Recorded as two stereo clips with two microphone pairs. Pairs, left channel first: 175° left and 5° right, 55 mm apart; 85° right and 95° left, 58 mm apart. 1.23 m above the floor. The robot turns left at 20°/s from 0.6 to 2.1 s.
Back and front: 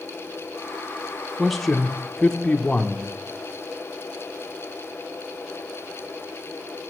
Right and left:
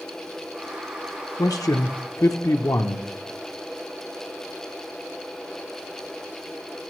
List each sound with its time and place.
1.4 s a man speaking: 90° right, 0.6 m; by 3.0 s 105° right, 0.6 m